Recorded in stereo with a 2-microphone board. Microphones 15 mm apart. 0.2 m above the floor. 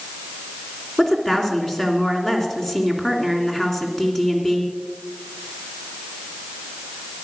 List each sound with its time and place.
1.0 s a woman speaking: 35° left (ahead or behind), 2.5 m